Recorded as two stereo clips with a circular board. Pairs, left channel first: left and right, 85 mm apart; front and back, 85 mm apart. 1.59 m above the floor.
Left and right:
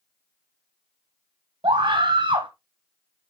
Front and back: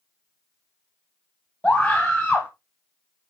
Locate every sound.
1.6 s a scream: 80° right, 1.0 m